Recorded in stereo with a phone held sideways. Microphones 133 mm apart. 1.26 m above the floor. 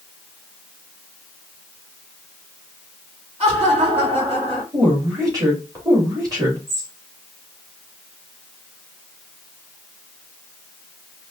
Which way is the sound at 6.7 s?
20° right (ahead or behind).